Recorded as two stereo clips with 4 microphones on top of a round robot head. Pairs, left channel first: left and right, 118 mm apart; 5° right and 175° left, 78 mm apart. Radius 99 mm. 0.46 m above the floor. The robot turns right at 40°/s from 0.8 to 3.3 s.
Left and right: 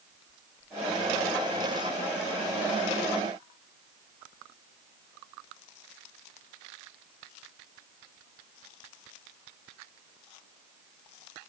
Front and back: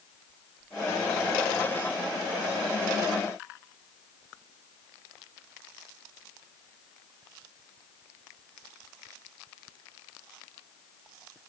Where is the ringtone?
I don't hear a ringtone.